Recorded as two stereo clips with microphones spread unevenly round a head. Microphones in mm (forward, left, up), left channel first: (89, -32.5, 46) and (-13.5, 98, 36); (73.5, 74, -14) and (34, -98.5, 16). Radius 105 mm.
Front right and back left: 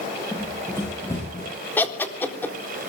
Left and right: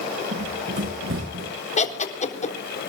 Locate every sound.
0.3 s running footsteps: 135° right, 8 m; by 1.5 s 125° right, 8 m
1.8 s laughter: 25° left, 4 m